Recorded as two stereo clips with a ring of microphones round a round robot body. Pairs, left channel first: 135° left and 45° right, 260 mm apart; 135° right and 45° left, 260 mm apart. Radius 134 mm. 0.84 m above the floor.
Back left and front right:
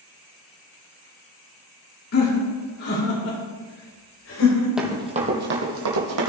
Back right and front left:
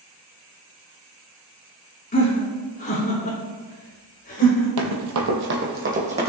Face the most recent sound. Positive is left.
turn(degrees=-20)